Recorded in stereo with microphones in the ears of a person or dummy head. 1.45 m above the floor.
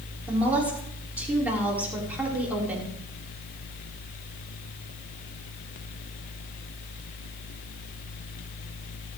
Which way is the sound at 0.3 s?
10° right (ahead or behind).